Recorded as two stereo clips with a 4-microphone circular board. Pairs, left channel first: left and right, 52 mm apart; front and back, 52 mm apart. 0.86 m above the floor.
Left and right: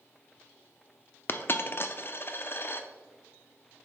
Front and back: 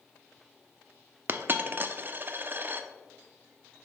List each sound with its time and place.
1.3 s a dropped coin: 130° left, 0.5 m